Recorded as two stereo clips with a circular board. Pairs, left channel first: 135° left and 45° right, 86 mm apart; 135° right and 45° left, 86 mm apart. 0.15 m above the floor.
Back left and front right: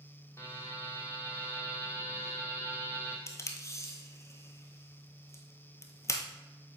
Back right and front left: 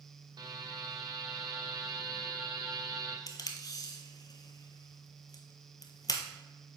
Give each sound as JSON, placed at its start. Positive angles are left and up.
{"t": 0.4, "sound": "a buzzer", "azimuth_deg": 80, "distance_m": 1.2}
{"t": 3.3, "sound": "tape being pulled", "azimuth_deg": -175, "distance_m": 1.0}